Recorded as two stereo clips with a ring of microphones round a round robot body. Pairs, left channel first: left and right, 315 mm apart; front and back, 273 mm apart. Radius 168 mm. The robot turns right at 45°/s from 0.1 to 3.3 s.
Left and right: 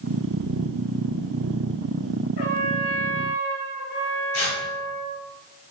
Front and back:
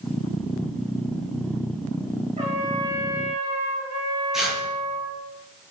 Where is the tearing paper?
90° left, 4.5 m.